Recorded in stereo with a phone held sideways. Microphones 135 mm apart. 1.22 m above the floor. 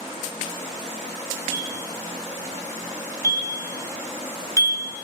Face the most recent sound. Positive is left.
turn(degrees=25)  # may be behind; listen again after turning